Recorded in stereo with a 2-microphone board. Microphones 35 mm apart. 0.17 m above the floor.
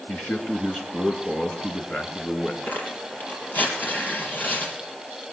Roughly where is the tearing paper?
Left.